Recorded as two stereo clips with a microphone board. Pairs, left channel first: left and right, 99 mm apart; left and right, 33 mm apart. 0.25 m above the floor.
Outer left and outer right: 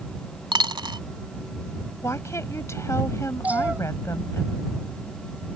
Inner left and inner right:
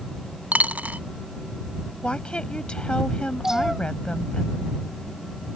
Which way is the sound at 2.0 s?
30° left (ahead or behind).